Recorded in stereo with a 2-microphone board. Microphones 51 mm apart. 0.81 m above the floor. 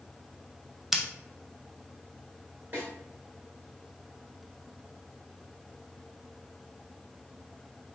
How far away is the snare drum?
About 1.9 m.